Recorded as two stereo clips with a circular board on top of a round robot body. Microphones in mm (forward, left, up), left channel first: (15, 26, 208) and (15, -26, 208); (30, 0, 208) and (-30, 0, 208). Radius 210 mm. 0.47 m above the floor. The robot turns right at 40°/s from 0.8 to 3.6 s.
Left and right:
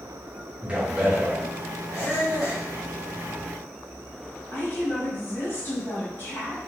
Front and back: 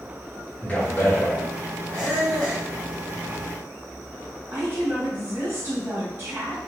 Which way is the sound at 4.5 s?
130° left.